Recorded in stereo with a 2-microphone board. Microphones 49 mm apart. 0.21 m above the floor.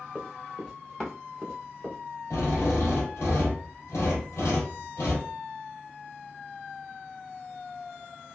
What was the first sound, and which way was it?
Running footsteps, centre (ahead or behind).